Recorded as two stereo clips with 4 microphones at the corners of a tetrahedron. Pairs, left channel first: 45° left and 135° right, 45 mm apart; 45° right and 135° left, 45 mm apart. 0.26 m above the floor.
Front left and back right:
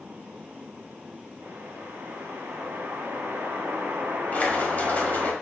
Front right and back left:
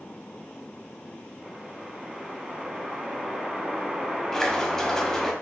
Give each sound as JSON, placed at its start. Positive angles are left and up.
{"t": 1.4, "sound": "a whoosh", "azimuth_deg": -150, "distance_m": 0.8}
{"t": 4.3, "sound": "a splash", "azimuth_deg": 25, "distance_m": 0.8}